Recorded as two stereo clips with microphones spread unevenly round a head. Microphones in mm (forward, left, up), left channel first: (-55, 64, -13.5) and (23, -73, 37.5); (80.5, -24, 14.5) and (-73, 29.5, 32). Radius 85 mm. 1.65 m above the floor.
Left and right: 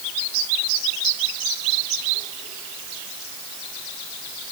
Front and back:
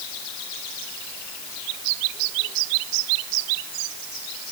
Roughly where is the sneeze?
No sneeze in this recording.